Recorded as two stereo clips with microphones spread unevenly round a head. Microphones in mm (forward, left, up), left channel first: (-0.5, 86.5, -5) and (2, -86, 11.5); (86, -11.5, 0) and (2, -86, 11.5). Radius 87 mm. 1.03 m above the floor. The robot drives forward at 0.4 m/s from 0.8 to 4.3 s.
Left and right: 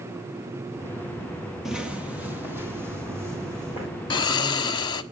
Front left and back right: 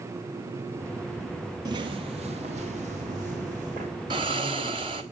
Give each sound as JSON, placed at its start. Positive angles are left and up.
{"t": 1.6, "sound": "footsteps", "azimuth_deg": -170, "distance_m": 1.3}
{"t": 4.1, "sound": "snoring", "azimuth_deg": 160, "distance_m": 1.0}